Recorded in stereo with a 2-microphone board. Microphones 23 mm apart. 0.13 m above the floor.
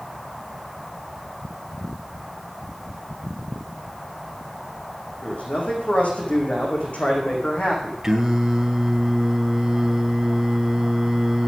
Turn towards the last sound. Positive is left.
turn(degrees=-20)  # may be behind; listen again after turning